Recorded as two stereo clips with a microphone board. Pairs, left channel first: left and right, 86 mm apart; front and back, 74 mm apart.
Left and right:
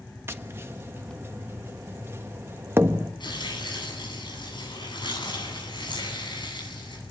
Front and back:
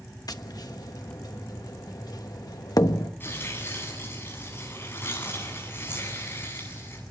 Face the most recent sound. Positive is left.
turn(degrees=60)